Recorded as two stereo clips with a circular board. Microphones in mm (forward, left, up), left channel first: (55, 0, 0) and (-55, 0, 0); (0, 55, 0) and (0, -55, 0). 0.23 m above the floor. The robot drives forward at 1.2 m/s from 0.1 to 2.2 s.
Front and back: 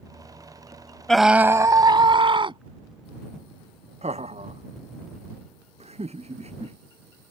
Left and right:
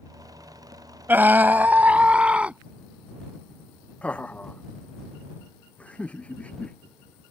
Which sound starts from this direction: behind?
Laughter, at 4.0 s.